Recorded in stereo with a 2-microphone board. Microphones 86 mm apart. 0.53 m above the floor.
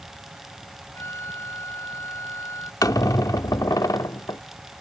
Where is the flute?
30° left (ahead or behind).